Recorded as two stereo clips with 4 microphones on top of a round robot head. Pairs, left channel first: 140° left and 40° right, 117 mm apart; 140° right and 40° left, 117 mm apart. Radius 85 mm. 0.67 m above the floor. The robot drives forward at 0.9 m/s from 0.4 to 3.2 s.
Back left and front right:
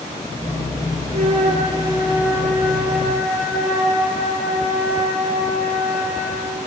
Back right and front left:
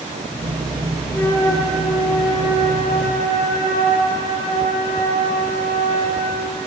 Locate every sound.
1.1 s a flute: 65° right, 1.3 m; by 6.6 s 140° right, 1.8 m